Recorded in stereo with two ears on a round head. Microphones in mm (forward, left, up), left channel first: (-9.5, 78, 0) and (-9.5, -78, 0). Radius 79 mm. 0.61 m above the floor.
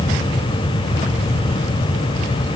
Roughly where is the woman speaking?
I don't hear a woman speaking.